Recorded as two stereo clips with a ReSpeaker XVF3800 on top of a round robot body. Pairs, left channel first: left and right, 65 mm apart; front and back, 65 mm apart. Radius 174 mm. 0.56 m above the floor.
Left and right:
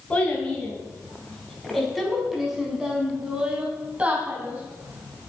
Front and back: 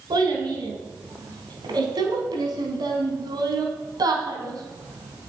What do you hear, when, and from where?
0.1 s a child speaking: 165° left, 4.5 m; by 5.3 s 150° right, 4.5 m